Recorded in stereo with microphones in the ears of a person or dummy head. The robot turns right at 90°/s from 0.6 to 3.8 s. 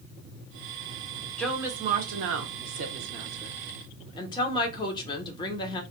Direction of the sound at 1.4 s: 175° left.